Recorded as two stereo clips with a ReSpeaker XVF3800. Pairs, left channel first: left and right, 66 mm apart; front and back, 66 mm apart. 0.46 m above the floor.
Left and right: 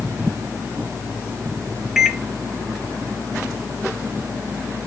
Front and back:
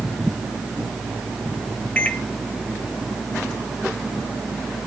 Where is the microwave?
15° right, 0.8 m.